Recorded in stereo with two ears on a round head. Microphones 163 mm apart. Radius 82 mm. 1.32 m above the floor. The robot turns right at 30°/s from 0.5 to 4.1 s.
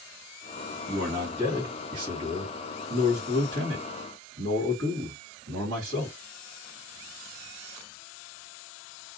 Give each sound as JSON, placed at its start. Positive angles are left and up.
{"t": 0.9, "sound": "a man speaking", "azimuth_deg": -175, "distance_m": 1.9}